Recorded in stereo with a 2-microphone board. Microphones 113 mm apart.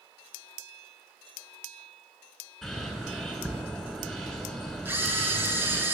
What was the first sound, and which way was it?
A bird, centre (ahead or behind).